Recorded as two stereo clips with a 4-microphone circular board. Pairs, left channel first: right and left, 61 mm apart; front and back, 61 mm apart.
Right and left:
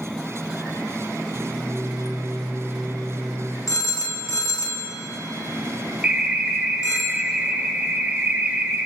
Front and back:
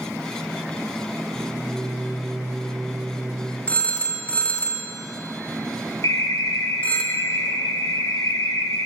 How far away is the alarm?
About 0.6 m.